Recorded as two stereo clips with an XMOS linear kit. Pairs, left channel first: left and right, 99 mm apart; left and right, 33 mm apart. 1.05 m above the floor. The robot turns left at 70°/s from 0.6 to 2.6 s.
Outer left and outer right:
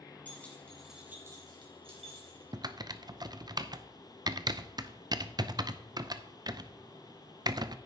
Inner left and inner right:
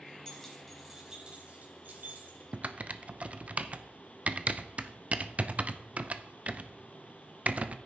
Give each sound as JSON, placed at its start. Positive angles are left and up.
{"t": 0.2, "sound": "keys jangling", "side_deg": 15, "distance_m": 3.5}
{"t": 2.5, "sound": "typing on a keyboard", "side_deg": -45, "distance_m": 0.5}